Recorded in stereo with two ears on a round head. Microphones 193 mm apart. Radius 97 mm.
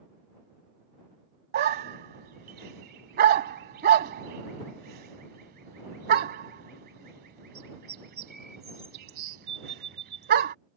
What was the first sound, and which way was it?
A dog barking, 50° right (ahead or behind).